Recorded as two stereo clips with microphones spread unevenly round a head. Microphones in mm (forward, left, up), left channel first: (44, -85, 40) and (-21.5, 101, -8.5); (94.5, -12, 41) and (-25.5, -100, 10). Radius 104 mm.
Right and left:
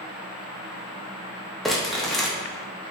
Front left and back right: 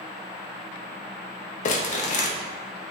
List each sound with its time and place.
1.6 s crumpling: 10° left, 0.6 m